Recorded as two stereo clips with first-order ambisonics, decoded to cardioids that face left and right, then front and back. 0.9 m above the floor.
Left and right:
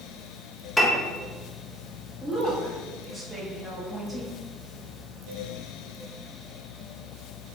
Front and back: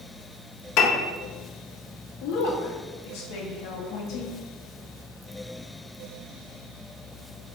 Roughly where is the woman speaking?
Ahead.